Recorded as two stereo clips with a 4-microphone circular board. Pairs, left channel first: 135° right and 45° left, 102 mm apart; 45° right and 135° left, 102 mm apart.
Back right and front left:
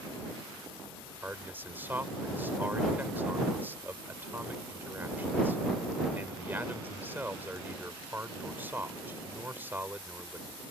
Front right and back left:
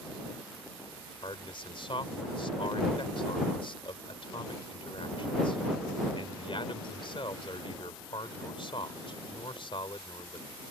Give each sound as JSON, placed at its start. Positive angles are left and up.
{"t": 1.2, "sound": "a man speaking", "azimuth_deg": -25}